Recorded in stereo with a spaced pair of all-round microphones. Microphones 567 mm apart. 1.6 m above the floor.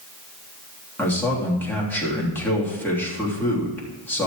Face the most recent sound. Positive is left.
turn(degrees=5)  # may be behind; listen again after turning